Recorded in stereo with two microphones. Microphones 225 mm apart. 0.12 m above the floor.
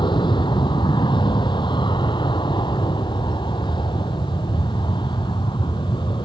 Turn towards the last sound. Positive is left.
turn(degrees=20)  # may be behind; listen again after turning